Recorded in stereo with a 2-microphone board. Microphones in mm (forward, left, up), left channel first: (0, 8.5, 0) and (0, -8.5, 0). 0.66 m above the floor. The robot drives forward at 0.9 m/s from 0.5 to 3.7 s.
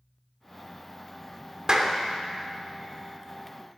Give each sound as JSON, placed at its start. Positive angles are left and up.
{"t": 1.7, "sound": "a clap", "side_deg": -45, "distance_m": 1.3}